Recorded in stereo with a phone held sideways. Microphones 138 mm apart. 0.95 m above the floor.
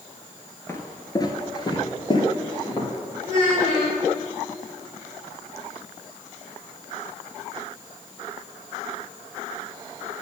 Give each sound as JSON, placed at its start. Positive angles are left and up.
{"t": 0.7, "sound": "footsteps", "side_deg": 20, "distance_m": 1.0}
{"t": 3.2, "sound": "a child speaking", "side_deg": 35, "distance_m": 3.0}